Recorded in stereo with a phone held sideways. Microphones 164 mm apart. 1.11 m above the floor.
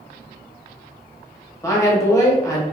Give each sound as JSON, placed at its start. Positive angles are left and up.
{"t": 1.6, "sound": "a woman speaking", "side_deg": 15, "distance_m": 0.9}